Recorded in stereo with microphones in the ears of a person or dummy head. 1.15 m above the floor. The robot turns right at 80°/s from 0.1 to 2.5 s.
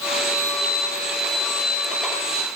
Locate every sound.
Only background noise.